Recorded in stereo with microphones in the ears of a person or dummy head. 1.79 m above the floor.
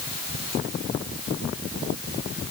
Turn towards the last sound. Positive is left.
No sound to turn to.